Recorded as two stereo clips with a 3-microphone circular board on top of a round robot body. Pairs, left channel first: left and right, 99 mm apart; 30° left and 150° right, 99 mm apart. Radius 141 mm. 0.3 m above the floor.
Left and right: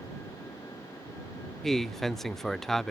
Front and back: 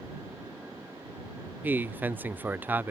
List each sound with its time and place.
1.6 s a man speaking: 175° left